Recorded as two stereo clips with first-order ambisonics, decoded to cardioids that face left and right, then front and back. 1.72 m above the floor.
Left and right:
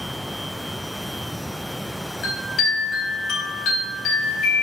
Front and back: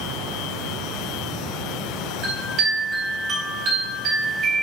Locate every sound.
2.2 s a chime: 135° left, 3.5 m